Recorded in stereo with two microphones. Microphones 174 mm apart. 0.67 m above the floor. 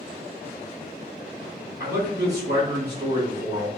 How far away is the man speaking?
About 2.0 m.